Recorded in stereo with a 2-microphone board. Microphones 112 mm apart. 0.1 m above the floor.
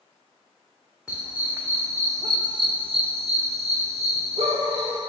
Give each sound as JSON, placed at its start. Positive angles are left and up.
{"t": 1.1, "sound": "a dog barking", "side_deg": -10, "distance_m": 1.7}